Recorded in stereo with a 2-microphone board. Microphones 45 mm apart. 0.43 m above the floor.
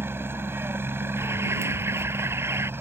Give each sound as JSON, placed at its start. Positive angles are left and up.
{"t": 0.0, "sound": "a helicopter", "side_deg": -60}
{"t": 1.2, "sound": "an alarm", "side_deg": -80}